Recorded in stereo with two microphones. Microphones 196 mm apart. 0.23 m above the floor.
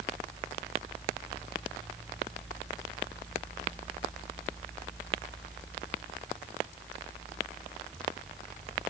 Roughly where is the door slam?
I don't hear a door slam.